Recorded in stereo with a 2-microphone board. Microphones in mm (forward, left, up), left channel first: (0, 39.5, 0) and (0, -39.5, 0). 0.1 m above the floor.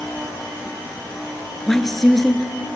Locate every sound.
1.7 s a woman speaking: 5° left (ahead or behind), 1.3 m